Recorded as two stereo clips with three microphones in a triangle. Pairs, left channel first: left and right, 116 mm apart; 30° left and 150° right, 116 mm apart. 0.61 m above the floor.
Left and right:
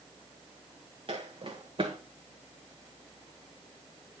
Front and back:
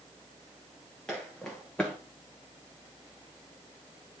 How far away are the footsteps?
About 2 m.